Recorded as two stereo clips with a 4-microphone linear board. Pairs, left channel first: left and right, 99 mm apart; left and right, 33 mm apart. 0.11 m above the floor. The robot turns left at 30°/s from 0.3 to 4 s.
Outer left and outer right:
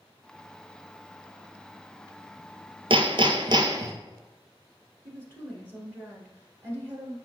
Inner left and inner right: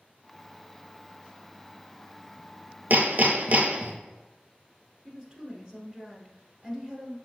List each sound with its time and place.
2.9 s hammering: 105° right, 0.7 m; by 3.9 s 140° right, 0.7 m
5.0 s a woman speaking: 25° right (ahead or behind), 1.4 m